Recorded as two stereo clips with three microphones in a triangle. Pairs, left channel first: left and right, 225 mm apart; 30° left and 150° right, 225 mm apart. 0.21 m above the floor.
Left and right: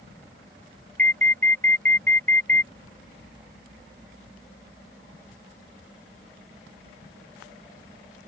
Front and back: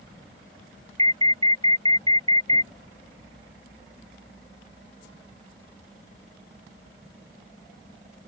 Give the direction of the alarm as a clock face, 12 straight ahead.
3 o'clock.